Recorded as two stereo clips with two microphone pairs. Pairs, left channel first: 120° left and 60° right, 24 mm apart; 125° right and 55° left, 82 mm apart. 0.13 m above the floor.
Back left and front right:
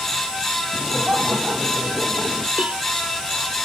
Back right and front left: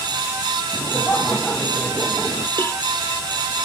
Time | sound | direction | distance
0.7 | laughter | 60° right | ?
2.6 | a cowbell | 65° right | ?